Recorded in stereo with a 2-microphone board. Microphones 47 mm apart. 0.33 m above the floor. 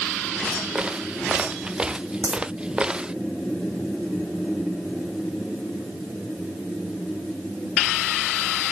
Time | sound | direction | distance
0.8 | footsteps | 20° right (ahead or behind) | ?
2.2 | a dropped coin | 70° right (ahead or behind) | ?